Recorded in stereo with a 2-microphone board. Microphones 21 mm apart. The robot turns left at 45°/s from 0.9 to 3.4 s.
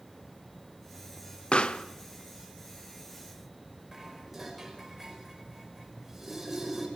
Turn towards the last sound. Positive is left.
turn(degrees=-15)  # may be behind; listen again after turning